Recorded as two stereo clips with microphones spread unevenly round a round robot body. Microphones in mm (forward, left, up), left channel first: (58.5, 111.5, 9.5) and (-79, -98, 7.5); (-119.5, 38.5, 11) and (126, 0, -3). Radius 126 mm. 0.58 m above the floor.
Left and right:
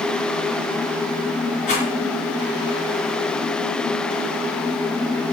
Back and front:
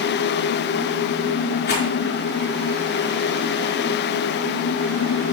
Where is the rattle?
120° left, 4.5 m.